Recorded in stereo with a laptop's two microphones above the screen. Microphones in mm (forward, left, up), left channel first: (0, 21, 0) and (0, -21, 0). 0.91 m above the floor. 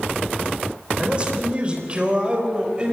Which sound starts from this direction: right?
A man speaking, at 1.0 s.